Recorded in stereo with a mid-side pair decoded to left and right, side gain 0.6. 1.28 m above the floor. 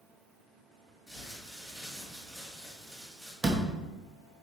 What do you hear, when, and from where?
1.1 s crumpling: 15° right, 3 m
3.4 s a door slam: 20° right, 1.4 m